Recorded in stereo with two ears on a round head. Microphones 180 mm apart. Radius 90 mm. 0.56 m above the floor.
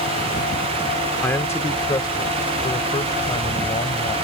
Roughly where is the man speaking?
Centre.